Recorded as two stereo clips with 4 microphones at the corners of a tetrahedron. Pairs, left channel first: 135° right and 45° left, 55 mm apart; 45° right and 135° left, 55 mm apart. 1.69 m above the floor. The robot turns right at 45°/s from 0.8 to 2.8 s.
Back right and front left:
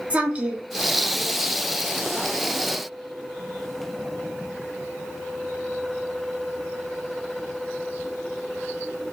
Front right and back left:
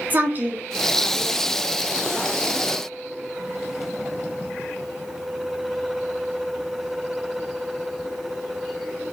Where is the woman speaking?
100° left, 0.6 m.